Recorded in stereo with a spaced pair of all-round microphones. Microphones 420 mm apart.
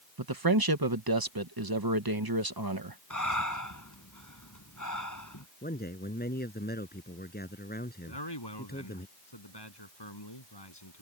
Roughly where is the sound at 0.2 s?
Right.